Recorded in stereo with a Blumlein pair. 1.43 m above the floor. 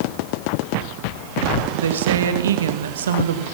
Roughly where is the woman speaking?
Ahead right.